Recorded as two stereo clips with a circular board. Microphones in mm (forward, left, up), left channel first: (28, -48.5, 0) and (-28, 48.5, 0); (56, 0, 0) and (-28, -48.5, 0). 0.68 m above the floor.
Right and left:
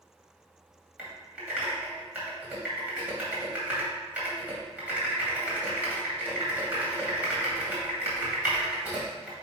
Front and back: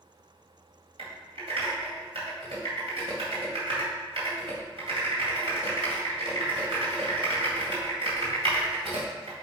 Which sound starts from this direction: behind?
Typing on a keyboard, at 1.0 s.